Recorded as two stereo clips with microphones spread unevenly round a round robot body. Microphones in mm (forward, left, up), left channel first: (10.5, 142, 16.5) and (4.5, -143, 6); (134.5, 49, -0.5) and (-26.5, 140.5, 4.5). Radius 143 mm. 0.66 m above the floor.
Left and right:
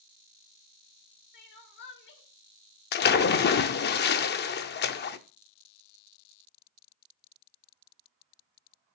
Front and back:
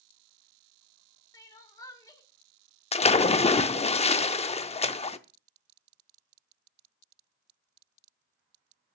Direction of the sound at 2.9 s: 30° left.